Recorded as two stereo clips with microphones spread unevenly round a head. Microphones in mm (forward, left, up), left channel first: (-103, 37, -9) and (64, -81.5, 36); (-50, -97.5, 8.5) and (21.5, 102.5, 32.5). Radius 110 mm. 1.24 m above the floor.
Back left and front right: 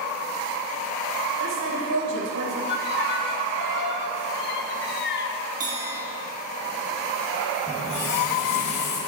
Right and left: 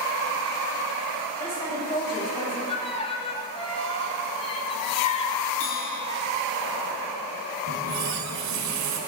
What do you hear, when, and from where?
1.4 s a woman speaking: 40° right, 6 m
2.7 s a violin: 175° right, 1.5 m
5.6 s a bell: 90° right, 3.5 m
7.7 s a running tap: 55° left, 4 m